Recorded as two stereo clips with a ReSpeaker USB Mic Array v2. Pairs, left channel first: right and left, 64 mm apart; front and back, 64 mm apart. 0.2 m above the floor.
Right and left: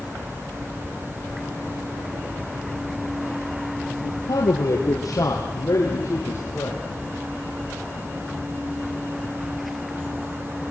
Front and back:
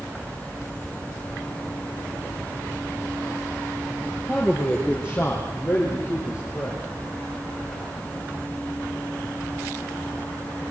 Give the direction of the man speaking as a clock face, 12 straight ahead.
3 o'clock.